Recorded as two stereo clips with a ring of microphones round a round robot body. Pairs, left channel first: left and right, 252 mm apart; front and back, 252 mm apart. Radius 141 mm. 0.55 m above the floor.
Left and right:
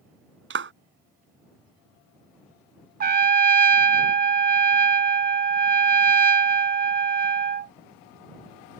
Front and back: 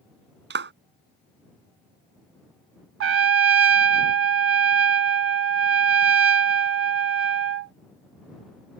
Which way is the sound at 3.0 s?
145° right.